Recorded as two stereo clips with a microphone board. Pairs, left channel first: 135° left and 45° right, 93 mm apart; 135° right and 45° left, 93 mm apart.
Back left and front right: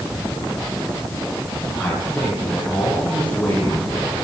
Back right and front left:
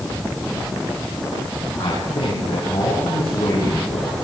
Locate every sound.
1.8 s a man speaking: 140° right, 9.5 m; by 4.1 s 145° right, 8.5 m